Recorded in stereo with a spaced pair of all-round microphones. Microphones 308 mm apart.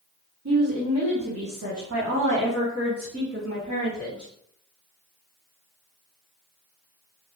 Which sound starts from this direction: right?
A woman speaking, at 0.5 s.